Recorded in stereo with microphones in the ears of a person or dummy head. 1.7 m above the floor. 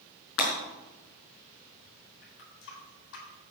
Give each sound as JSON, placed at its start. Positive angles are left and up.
{"t": 0.4, "sound": "breaking glass", "side_deg": 70, "distance_m": 4.5}
{"t": 2.2, "sound": "a running tap", "side_deg": 70, "distance_m": 4.0}